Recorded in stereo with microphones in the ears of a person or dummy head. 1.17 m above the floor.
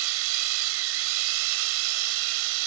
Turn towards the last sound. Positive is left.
turn(degrees=-80)